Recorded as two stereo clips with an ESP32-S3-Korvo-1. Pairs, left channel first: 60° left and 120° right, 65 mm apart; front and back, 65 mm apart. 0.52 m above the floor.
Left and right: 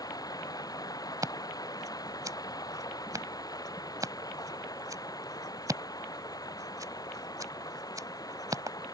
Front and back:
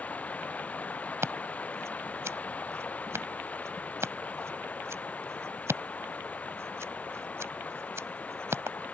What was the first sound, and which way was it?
Running water, 65° left.